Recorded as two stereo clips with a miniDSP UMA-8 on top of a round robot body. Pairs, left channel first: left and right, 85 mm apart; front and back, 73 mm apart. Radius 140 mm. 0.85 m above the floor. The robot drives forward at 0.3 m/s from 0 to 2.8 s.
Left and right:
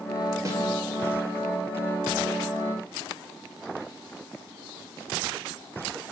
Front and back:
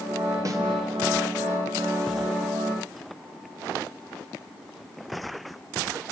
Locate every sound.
0.5 s a snare drum: 140° right, 3 m